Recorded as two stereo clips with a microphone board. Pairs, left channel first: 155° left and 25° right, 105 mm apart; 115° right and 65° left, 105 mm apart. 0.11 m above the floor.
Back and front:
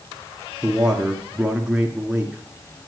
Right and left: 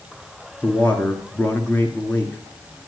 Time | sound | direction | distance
0.6 | a man speaking | 85° right | 1.4 m